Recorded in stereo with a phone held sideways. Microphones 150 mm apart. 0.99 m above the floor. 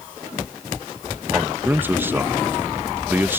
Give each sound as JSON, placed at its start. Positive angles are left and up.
{"t": 1.3, "sound": "a man speaking", "side_deg": -15}